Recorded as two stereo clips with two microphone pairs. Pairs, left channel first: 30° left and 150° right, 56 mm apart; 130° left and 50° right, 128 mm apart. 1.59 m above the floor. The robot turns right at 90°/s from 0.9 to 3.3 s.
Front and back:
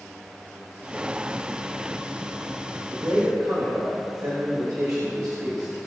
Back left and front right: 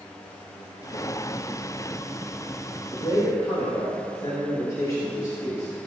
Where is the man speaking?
160° left, 3.5 m; by 5.9 s 165° right, 3.5 m.